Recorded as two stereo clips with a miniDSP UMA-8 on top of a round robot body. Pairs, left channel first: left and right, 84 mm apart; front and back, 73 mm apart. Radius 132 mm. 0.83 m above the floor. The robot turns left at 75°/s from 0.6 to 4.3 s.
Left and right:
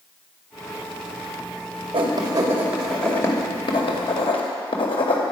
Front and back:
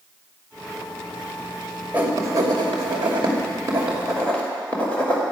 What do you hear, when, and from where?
1.9 s writing: 110° right, 2.5 m; by 5.2 s 75° left, 2.5 m